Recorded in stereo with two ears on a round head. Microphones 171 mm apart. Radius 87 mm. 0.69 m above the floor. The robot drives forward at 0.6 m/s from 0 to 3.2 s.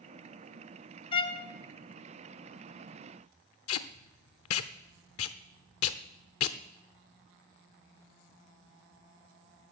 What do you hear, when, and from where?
1.1 s a violin: 30° left (ahead or behind), 1.1 m; by 1.5 s 25° left (ahead or behind), 1.2 m
3.7 s tape being pulled: 80° left, 0.8 m